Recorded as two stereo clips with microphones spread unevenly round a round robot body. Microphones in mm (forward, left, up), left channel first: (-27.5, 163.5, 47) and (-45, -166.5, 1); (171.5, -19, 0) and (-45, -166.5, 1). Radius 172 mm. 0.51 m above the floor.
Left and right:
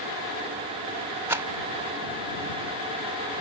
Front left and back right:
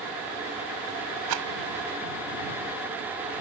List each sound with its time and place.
1.3 s a rattle: 175° right